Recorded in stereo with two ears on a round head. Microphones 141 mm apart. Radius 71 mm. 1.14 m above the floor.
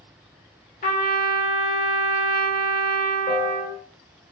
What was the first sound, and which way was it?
A trumpet, 55° left (ahead or behind).